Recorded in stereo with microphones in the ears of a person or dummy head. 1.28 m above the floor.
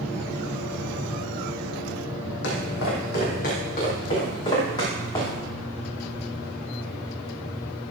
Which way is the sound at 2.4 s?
65° left (ahead or behind).